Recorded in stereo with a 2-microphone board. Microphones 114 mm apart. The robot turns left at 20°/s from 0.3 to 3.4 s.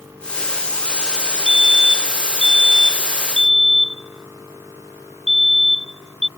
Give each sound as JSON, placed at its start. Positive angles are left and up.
{"t": 1.5, "sound": "a fire alarm", "side_deg": -50}